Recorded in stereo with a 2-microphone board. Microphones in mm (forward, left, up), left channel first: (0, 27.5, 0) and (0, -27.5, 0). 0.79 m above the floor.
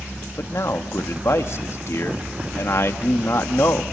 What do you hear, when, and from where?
0.4 s a man speaking: 55° left (ahead or behind), 1.1 m